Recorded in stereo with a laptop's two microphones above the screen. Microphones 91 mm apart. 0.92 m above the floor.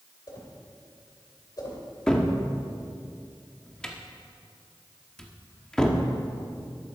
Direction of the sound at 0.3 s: 45° left (ahead or behind).